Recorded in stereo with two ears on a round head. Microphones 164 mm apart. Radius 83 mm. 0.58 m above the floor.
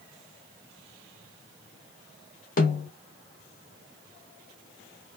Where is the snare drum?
45° left (ahead or behind), 1.0 m.